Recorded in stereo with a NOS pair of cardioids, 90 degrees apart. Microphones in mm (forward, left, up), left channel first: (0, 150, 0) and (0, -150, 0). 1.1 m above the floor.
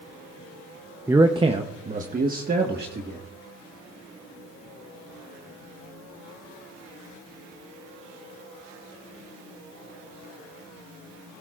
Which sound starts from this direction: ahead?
A man speaking, at 1.1 s.